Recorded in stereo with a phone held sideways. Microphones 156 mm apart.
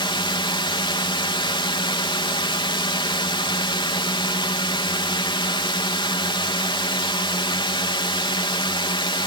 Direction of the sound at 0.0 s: 30° left (ahead or behind).